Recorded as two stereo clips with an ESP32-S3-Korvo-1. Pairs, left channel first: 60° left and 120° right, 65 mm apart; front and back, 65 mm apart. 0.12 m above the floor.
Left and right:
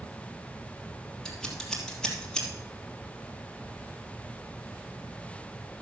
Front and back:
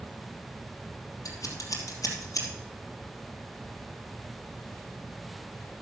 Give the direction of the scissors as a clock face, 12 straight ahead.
1 o'clock.